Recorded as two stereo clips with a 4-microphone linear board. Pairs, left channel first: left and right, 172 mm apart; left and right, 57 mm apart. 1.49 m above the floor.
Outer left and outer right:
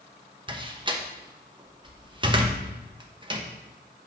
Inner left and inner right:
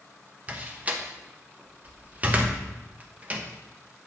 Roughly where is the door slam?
Right.